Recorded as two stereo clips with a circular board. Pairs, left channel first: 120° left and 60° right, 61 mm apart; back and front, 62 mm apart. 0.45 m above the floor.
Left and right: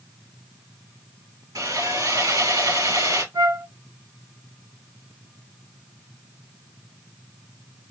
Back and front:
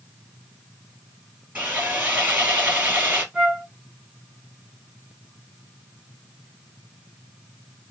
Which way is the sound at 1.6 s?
60° right.